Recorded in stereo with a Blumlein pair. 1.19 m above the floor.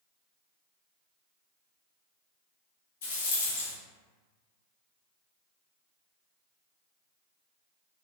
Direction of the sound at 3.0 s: 60° left.